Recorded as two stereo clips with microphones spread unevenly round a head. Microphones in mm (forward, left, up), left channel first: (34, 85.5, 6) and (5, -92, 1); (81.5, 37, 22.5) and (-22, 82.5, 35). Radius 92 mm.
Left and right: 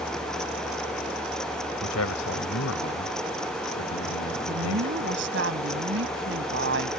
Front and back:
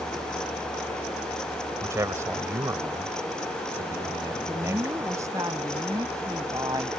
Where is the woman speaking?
130° right.